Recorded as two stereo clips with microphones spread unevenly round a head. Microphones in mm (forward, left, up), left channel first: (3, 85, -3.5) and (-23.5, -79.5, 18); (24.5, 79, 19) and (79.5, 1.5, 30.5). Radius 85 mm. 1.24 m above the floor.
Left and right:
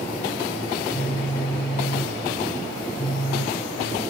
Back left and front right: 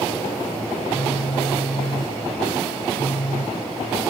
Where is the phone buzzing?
145° left, 1.6 m.